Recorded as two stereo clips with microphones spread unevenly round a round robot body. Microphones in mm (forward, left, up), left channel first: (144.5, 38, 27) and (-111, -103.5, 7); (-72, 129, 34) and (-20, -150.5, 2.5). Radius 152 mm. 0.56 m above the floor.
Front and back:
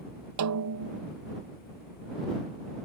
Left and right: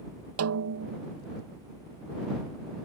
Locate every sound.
0.4 s a snare drum: 120° right